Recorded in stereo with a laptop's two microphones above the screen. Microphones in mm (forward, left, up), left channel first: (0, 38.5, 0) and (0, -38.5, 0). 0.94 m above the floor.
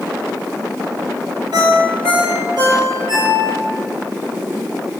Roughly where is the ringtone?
Right.